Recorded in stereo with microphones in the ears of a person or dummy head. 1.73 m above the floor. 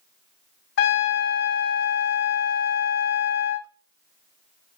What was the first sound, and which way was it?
A trumpet, 65° left (ahead or behind).